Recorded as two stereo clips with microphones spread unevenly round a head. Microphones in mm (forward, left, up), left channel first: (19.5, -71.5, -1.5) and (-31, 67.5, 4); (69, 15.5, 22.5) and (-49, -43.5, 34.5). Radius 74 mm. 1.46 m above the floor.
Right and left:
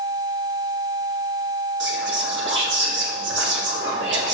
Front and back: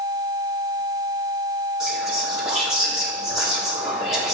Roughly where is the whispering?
Behind left.